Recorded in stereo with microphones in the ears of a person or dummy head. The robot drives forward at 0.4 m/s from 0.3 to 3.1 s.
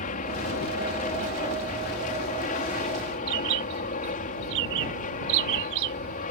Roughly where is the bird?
Right.